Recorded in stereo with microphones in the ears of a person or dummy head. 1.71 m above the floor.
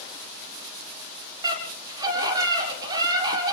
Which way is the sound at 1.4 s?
25° right (ahead or behind).